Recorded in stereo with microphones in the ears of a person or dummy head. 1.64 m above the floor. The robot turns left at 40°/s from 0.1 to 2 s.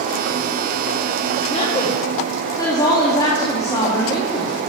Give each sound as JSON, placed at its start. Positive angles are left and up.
{"t": 1.5, "sound": "a woman speaking", "side_deg": 40, "distance_m": 3.0}